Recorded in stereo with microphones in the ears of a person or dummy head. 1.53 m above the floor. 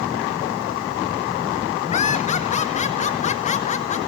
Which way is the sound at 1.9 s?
40° left (ahead or behind).